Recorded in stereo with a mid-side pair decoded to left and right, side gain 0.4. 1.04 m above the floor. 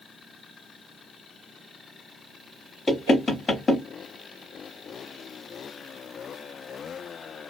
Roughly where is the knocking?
Ahead left.